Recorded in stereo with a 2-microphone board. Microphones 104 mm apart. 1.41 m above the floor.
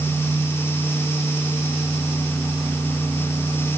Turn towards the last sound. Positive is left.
No sound to turn to.